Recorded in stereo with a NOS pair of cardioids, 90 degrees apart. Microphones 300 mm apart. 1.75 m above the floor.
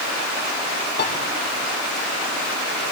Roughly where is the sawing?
No sawing in this recording.